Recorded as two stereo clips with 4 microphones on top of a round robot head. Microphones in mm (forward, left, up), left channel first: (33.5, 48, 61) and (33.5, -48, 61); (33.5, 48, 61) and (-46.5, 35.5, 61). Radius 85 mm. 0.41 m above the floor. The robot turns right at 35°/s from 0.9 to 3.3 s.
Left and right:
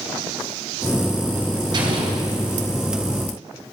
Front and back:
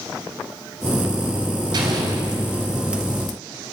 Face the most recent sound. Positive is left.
turn(degrees=-80)